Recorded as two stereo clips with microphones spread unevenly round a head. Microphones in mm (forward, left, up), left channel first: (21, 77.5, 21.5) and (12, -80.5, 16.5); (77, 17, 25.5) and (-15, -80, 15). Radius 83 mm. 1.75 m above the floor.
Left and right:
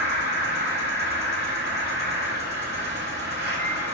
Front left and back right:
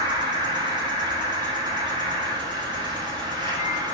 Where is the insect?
80° right, 3 m.